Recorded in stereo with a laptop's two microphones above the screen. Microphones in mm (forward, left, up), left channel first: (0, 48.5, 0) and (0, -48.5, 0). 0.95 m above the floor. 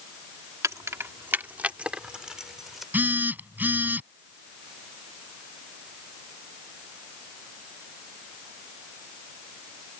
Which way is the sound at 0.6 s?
35° right (ahead or behind).